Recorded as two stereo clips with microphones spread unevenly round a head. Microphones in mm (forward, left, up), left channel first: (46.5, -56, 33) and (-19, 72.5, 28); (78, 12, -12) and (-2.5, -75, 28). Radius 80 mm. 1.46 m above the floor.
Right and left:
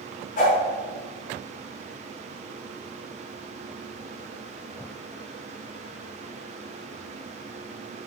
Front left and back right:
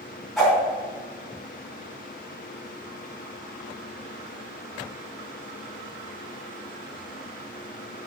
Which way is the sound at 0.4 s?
40° right.